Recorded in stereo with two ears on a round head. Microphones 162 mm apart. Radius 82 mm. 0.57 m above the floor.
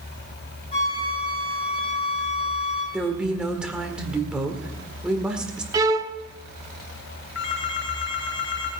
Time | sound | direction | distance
0.7 | a flute | 30° left (ahead or behind) | 7.5 m
2.9 | a woman speaking | 5° right (ahead or behind) | 1.8 m
5.7 | a violin | 20° right (ahead or behind) | 0.7 m
7.3 | a phone ringing | 80° left | 4.5 m